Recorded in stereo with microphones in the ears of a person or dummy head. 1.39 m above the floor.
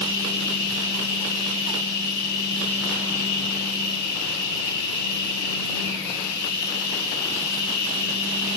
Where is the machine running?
50° left (ahead or behind), 10 m.